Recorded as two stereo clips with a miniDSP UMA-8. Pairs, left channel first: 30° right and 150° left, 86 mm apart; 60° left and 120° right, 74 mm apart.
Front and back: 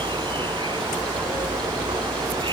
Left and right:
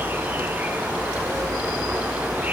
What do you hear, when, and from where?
0.0 s an insect: 175° left